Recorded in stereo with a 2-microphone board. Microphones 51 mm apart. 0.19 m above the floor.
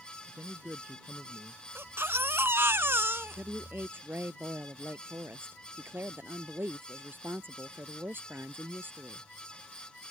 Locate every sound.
0.3 s a man speaking: 55° right (ahead or behind); by 1.6 s 30° right (ahead or behind)
1.8 s a baby crying: 55° right (ahead or behind)
3.4 s a woman speaking: 45° right (ahead or behind)